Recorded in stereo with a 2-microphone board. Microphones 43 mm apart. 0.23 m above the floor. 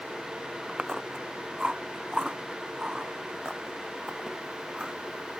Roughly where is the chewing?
Centre.